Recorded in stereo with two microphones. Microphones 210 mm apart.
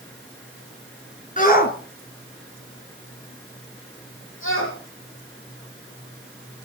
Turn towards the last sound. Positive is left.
turn(degrees=75)  # may be behind; listen again after turning